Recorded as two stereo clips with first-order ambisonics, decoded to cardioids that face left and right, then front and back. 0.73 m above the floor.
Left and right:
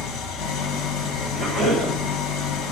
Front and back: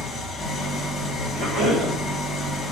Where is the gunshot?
No gunshot in this recording.